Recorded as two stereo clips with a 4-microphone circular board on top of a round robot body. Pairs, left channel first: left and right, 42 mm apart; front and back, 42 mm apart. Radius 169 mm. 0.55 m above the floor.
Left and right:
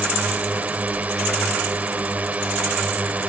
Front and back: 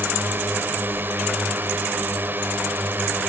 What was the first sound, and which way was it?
A drone, 145° right.